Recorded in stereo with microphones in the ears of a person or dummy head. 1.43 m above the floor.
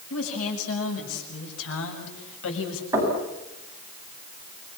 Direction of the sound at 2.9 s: 15° right (ahead or behind).